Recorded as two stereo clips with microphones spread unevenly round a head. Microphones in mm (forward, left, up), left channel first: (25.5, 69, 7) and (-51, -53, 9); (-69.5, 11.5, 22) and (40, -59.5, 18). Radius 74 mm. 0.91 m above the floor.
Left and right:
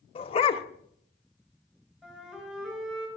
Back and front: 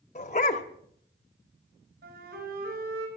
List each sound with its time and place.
0.1 s a dog barking: 105° left, 1.0 m
2.0 s a flute: 35° right, 4 m